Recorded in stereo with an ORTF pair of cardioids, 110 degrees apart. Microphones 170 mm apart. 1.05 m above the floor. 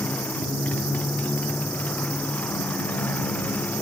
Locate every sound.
0.0 s a motorcycle: 10° left